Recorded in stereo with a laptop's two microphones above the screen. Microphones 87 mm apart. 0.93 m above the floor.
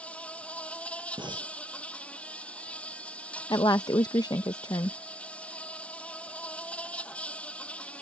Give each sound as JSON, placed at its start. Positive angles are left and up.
{"t": 0.0, "sound": "an insect", "side_deg": 15}
{"t": 1.2, "sound": "breathing", "side_deg": -70}
{"t": 3.5, "sound": "a woman speaking", "side_deg": 50}